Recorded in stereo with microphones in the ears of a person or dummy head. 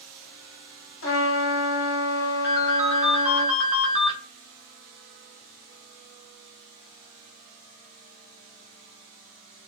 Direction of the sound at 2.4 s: 5° right (ahead or behind).